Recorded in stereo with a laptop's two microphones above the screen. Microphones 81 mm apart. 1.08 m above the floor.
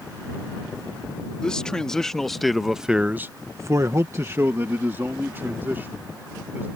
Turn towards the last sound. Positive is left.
turn(degrees=-25)  # may be behind; listen again after turning